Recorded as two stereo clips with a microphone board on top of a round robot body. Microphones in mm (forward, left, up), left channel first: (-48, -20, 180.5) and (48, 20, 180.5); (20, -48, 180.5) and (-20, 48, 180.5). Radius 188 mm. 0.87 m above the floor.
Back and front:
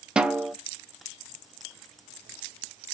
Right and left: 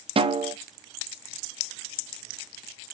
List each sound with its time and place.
0.2 s a snare drum: 105° left, 0.7 m